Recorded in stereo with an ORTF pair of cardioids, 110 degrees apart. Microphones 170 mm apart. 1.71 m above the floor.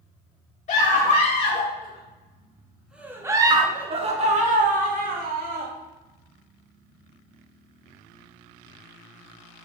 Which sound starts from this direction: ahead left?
A scream, at 0.7 s.